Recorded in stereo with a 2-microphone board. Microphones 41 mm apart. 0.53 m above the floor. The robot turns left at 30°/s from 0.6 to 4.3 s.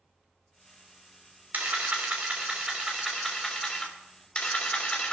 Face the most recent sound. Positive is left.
turn(degrees=150)